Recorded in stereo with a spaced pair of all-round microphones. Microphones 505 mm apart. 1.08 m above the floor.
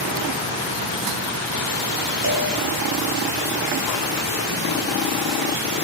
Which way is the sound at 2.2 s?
55° right (ahead or behind).